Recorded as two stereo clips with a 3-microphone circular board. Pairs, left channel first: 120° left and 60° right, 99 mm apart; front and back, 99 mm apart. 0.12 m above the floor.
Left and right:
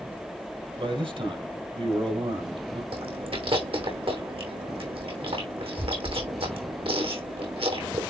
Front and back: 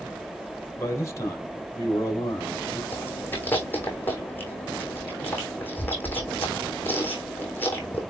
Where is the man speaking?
60° right, 3 m.